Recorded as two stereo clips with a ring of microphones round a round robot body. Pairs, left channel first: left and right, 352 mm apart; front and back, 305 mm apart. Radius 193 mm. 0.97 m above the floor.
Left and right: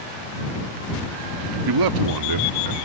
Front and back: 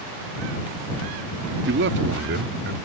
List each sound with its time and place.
1.7 s a man speaking: 120° right